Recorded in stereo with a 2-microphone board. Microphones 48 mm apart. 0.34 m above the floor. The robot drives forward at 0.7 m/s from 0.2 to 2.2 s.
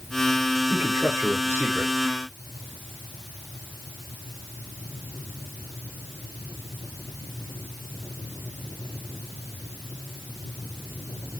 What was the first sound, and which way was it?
A man speaking, 50° right (ahead or behind).